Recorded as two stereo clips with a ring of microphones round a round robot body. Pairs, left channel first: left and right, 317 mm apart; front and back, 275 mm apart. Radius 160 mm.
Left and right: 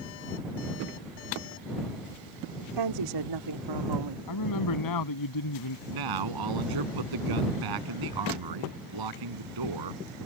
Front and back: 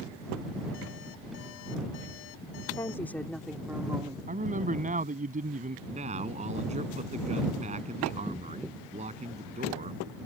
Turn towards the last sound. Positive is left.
turn(degrees=-110)